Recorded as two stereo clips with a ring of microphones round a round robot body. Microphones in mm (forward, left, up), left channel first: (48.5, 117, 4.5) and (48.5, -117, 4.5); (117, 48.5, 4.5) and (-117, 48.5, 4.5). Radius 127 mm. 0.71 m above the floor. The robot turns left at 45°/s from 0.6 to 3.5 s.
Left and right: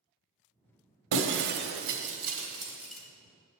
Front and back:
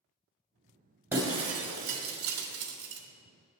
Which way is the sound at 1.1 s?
100° right.